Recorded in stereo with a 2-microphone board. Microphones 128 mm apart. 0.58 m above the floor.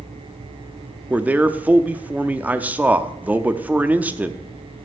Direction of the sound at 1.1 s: 10° right (ahead or behind).